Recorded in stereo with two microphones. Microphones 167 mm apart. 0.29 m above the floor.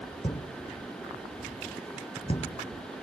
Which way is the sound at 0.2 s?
35° left (ahead or behind).